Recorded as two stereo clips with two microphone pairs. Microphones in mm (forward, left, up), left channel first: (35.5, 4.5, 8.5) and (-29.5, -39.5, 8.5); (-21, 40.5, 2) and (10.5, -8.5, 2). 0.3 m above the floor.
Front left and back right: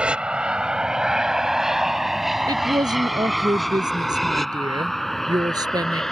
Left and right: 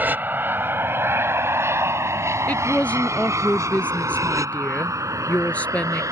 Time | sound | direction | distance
0.0 | an aircraft | 80° right | ?
2.5 | a woman speaking | 170° right | ?